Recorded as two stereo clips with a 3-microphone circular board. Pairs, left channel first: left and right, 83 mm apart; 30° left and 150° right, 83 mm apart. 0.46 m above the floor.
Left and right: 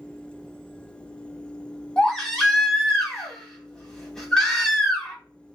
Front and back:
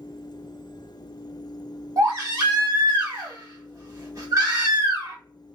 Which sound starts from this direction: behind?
A baby crying, at 2.0 s.